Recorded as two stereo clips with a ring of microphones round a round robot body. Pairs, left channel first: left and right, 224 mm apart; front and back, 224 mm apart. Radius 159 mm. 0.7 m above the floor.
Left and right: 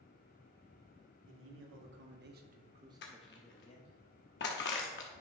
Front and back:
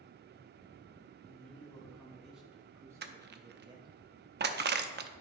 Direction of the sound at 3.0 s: 140° left.